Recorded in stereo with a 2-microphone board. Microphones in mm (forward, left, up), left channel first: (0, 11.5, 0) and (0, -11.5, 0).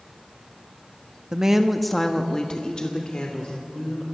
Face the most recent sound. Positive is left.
turn(degrees=50)  # may be behind; listen again after turning